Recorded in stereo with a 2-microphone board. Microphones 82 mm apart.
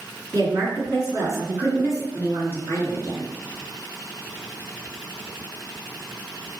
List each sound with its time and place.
0.3 s a woman speaking: 50° right (ahead or behind), 1.9 m